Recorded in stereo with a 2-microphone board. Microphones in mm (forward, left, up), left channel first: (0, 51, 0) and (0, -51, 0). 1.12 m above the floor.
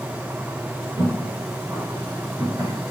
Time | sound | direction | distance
1.0 | footsteps | 25° right (ahead or behind) | 1.7 m